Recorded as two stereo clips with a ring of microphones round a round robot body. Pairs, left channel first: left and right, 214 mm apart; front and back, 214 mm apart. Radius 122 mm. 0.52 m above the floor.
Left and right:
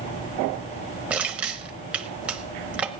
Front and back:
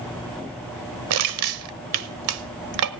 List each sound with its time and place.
1.1 s crushing: 175° right, 0.9 m